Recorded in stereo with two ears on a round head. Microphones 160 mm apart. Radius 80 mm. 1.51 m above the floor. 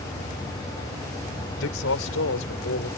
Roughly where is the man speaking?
Left.